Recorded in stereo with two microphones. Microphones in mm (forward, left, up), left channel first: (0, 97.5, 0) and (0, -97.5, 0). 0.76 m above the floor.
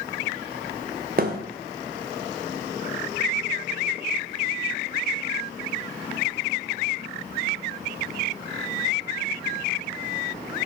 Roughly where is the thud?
Right.